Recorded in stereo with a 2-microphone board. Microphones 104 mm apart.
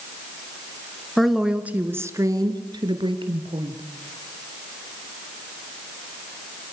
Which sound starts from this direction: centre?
A woman speaking, at 1.2 s.